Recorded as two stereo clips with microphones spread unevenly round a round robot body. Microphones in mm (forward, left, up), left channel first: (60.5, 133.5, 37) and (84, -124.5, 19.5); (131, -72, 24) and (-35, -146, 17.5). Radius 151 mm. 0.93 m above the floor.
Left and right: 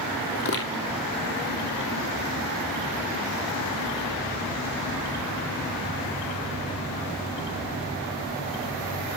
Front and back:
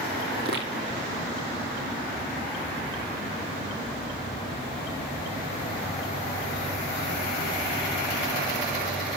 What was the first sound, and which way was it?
Footsteps, 145° left.